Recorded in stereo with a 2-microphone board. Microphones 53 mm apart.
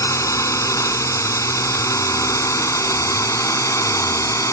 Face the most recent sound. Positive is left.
turn(degrees=75)  # may be behind; listen again after turning